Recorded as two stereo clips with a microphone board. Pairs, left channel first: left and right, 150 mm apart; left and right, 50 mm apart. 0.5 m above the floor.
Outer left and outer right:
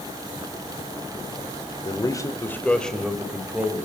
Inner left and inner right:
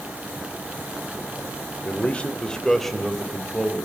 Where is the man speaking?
30° left (ahead or behind), 2 m; by 3.9 s 10° right (ahead or behind), 3 m.